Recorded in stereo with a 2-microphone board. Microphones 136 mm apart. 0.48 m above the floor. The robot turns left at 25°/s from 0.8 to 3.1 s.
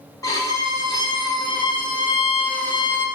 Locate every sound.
0.2 s a violin: 135° left, 0.6 m; by 3.1 s 80° left, 0.6 m